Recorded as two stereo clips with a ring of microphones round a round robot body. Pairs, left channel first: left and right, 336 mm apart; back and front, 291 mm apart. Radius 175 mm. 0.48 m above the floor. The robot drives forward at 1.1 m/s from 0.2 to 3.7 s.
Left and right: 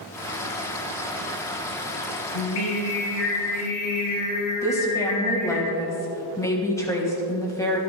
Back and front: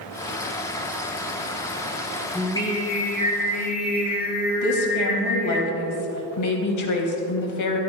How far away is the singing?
About 4 m.